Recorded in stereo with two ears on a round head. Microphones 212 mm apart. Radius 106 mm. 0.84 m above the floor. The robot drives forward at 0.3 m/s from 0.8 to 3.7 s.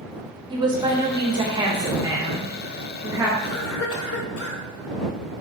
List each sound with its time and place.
0.5 s a woman speaking: 20° right (ahead or behind), 0.7 m; by 3.3 s 15° right (ahead or behind), 1.1 m
3.4 s a cough: 60° left (ahead or behind), 0.9 m